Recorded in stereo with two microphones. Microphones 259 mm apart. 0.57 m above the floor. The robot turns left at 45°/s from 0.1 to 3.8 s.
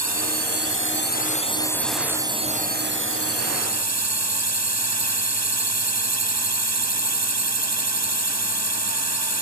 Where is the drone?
80° left; by 9.4 s 85° right.